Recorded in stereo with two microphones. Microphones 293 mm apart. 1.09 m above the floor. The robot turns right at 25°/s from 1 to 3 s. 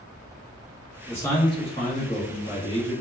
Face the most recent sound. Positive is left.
turn(degrees=55)